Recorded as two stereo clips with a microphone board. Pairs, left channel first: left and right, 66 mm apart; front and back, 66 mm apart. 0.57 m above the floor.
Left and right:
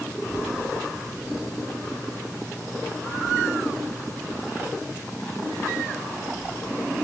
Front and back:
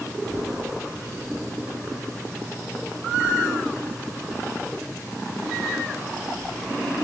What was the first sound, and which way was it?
A child speaking, 85° left.